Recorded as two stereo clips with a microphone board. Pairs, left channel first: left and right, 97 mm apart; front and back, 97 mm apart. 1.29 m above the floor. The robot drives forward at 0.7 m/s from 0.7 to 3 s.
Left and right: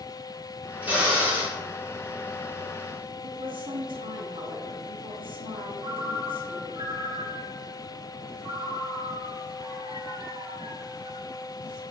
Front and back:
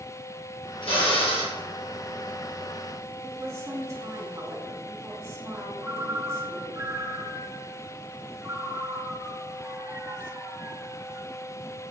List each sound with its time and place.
0.8 s a drill: 15° right, 2.5 m; by 1.6 s 20° right, 1.9 m
3.2 s a woman speaking: 120° right, 3 m
5.8 s a ringtone: 115° right, 2.5 m